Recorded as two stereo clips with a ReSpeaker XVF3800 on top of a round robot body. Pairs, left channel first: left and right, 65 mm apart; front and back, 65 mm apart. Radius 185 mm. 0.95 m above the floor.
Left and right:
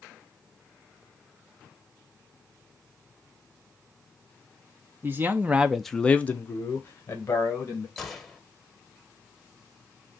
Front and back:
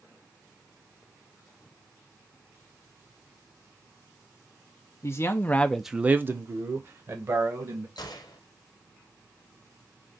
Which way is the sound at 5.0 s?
40° right.